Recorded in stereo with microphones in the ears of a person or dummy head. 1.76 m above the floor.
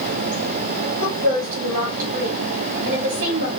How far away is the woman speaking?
About 1.8 m.